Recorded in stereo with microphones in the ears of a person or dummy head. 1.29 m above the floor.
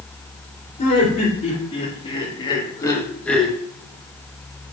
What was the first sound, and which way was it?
Laughter, 40° left (ahead or behind).